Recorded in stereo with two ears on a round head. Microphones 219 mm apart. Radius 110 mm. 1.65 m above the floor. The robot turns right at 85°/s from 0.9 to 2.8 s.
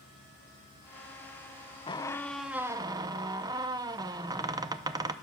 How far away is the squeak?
About 0.6 m.